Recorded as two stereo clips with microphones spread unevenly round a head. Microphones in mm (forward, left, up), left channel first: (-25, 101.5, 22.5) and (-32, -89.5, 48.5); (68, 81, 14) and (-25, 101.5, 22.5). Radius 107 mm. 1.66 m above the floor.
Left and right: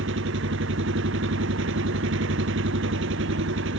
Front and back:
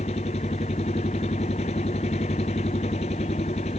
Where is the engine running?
60° right.